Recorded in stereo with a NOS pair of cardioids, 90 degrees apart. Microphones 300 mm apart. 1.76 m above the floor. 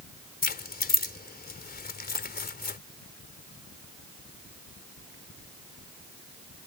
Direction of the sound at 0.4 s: 30° left.